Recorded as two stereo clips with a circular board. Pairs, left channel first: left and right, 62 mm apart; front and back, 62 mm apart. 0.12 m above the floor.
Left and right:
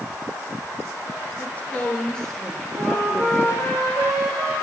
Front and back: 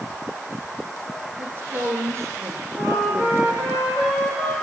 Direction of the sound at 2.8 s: 105° right.